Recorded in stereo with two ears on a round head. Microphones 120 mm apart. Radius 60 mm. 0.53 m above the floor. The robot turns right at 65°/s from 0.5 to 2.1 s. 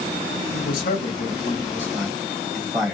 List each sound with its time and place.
0.5 s a man speaking: 70° left (ahead or behind), 2 m; by 2.9 s 5° right (ahead or behind), 2 m